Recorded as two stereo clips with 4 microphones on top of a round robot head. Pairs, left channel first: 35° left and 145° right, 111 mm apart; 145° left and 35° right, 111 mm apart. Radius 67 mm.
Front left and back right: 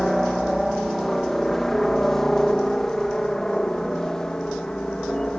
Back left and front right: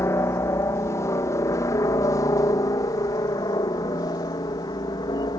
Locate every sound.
0.0 s a helicopter: 125° left; by 5.4 s 115° left